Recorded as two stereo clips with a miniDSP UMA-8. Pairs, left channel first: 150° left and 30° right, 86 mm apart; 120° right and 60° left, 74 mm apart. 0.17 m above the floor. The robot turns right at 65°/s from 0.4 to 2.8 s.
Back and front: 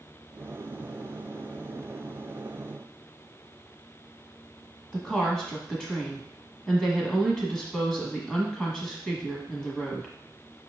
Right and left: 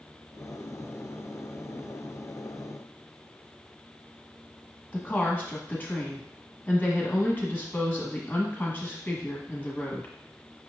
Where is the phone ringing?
No phone ringing in this recording.